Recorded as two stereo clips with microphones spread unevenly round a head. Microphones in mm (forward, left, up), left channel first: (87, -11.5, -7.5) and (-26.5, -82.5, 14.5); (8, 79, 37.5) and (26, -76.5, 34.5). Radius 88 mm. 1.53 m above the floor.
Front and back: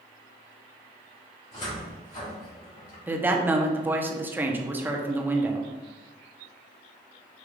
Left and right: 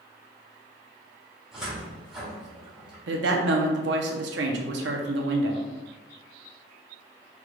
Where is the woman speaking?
75° right, 0.8 m.